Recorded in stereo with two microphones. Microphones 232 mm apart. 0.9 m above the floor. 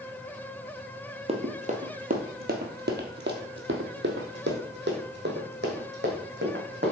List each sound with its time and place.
1.3 s running footsteps: 25° right (ahead or behind), 1.3 m; by 6.9 s 45° right (ahead or behind), 2.5 m